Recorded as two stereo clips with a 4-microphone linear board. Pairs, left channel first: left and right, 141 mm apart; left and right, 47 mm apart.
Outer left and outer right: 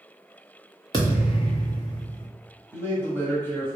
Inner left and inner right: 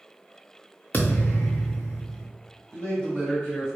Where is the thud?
30° left (ahead or behind), 1.4 m.